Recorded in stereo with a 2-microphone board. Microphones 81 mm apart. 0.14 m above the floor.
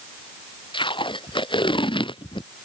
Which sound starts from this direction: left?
Tape being pulled, at 0.7 s.